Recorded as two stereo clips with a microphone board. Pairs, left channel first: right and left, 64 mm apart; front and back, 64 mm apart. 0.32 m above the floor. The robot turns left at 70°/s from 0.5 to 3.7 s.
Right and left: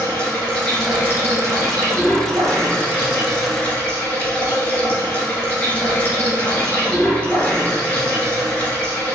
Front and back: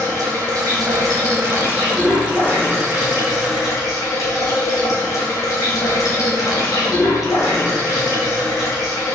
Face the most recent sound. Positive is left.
turn(degrees=-20)